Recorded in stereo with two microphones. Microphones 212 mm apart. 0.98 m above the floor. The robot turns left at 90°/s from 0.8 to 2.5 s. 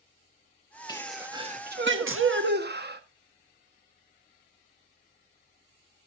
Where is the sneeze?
20° left, 1.3 m; by 3.0 s 125° right, 1.3 m.